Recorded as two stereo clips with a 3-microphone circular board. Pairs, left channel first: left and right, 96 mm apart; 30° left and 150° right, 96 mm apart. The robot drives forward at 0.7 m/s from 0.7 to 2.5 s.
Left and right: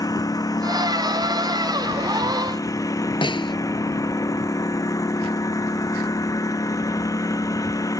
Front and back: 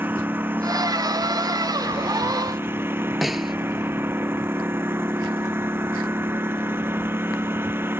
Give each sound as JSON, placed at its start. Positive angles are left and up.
{"t": 0.0, "sound": "a lawn mower", "azimuth_deg": 140}
{"t": 3.2, "sound": "a snare drum", "azimuth_deg": 120}